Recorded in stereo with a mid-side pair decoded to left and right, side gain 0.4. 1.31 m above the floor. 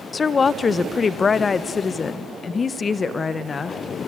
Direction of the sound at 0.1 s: 45° left.